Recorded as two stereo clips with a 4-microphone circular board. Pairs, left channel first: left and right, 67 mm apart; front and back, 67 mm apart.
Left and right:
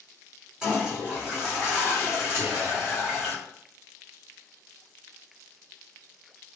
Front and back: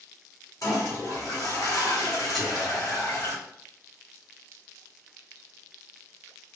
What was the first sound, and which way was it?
A toilet flushing, 10° right.